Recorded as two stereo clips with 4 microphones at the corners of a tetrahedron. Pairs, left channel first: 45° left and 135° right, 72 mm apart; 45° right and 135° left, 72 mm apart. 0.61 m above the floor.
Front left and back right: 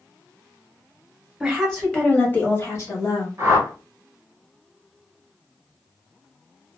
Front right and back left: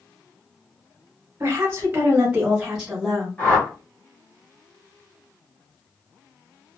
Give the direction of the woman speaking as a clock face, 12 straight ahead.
7 o'clock.